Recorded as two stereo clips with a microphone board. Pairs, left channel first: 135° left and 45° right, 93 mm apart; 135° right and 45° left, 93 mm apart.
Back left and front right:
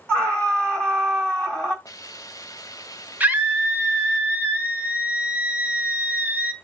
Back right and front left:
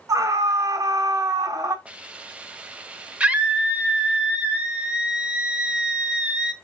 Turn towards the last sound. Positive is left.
turn(degrees=-10)